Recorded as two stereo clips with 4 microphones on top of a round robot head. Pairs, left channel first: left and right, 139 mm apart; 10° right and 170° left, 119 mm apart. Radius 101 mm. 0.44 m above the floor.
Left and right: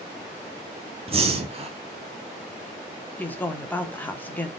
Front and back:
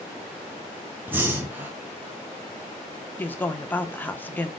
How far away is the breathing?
About 1.3 m.